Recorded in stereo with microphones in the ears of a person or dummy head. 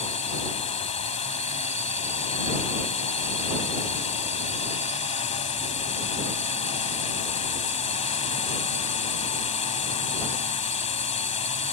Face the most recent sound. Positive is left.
turn(degrees=30)  # may be behind; listen again after turning